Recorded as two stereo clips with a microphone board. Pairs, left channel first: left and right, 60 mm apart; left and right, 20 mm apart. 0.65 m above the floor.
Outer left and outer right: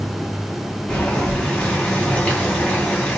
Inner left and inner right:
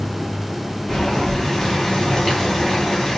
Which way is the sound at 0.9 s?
20° left (ahead or behind).